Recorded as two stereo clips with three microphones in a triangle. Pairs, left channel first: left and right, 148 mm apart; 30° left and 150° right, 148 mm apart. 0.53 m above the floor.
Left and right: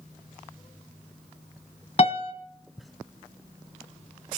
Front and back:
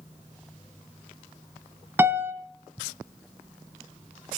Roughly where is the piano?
Behind left.